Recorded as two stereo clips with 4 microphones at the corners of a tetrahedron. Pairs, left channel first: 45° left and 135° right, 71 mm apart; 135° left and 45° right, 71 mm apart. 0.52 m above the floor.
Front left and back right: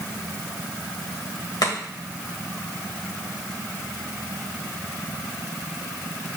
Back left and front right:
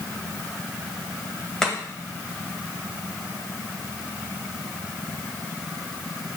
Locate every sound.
1.6 s chopping: 50° left, 2 m